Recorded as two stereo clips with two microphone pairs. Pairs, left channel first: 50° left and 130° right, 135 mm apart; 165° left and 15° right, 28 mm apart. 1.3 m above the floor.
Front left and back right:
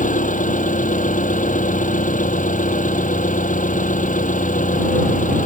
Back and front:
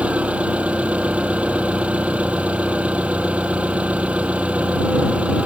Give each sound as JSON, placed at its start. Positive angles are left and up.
{"t": 0.0, "sound": "an engine running", "azimuth_deg": 35}